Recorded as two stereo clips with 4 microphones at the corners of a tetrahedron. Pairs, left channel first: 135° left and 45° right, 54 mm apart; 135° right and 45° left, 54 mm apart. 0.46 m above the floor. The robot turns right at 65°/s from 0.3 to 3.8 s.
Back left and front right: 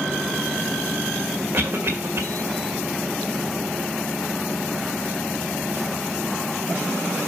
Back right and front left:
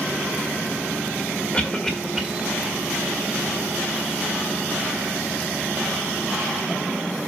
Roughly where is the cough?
Right.